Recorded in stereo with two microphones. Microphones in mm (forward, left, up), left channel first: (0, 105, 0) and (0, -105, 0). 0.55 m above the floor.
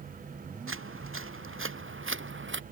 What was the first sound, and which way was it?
Footsteps, 80° right.